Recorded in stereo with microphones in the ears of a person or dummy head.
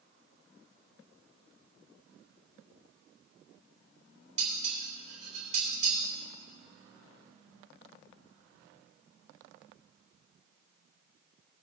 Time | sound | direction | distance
4.4 | dishes clattering | 45° right (ahead or behind) | 3 m